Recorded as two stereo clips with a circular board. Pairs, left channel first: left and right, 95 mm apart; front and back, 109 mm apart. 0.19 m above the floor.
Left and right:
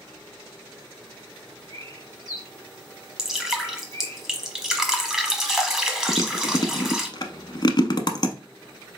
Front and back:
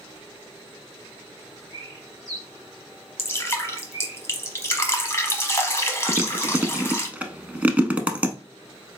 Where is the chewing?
105° left, 0.7 m.